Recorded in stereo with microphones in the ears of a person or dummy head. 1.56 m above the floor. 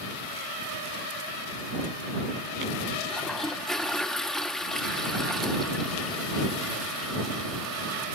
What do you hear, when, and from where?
3.1 s a toilet flushing: centre (ahead or behind)